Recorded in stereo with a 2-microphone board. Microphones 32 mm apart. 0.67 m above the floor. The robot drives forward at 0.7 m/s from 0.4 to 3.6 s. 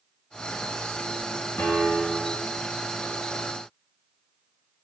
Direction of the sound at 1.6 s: 85° left.